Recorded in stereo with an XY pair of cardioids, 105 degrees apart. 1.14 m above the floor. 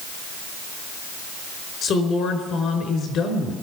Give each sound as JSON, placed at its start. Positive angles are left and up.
{"t": 1.8, "sound": "a woman speaking", "azimuth_deg": 65, "distance_m": 4.5}